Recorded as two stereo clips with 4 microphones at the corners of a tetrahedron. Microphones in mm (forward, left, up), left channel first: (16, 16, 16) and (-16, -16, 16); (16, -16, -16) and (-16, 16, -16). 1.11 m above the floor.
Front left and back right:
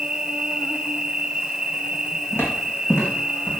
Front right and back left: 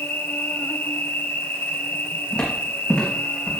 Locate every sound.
0.0 s an insect: 65° right, 1.0 m
2.3 s footsteps: 25° left, 3.5 m